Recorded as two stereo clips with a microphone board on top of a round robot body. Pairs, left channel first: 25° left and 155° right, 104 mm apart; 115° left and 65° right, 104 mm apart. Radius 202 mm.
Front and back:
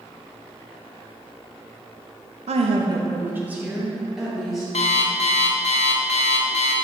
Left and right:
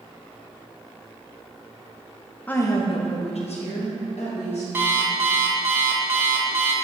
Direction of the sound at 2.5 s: 170° right.